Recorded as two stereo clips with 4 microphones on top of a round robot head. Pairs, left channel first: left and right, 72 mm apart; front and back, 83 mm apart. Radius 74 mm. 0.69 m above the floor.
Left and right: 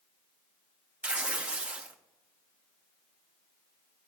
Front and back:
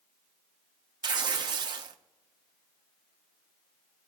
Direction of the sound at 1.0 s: 160° right.